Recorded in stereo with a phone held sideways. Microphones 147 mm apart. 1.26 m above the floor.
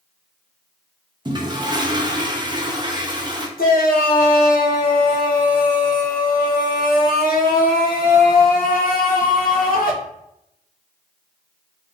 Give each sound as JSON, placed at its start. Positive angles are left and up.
{"t": 1.2, "sound": "a toilet flushing", "side_deg": -30, "distance_m": 0.7}
{"t": 3.6, "sound": "a shout", "side_deg": 85, "distance_m": 1.1}